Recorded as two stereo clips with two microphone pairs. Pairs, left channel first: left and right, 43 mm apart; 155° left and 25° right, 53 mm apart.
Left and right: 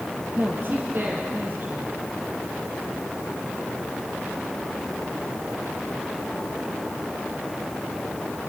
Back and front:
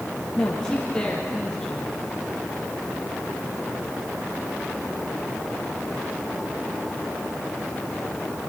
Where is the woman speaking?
125° right, 3.5 m.